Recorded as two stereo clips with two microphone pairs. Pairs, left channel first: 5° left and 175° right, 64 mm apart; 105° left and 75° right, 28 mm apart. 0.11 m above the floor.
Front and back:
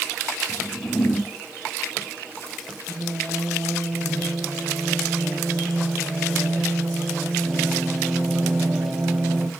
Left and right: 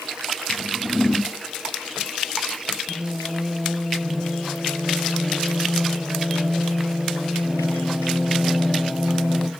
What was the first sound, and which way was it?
A whoosh, 20° left.